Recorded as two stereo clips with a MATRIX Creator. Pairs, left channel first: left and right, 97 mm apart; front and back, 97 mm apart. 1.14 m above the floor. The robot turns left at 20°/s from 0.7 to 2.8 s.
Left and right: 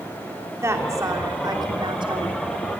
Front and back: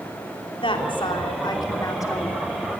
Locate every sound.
0.6 s a woman speaking: 25° right, 3 m; by 2.4 s 60° right, 3 m